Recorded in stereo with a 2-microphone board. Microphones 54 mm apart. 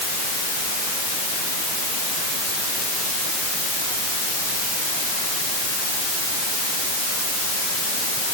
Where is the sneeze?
I don't hear a sneeze.